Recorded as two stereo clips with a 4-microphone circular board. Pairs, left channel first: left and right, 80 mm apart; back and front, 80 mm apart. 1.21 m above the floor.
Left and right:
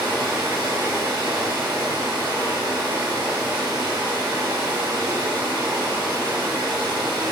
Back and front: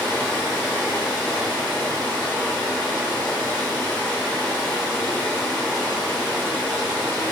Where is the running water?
120° right, 0.9 m.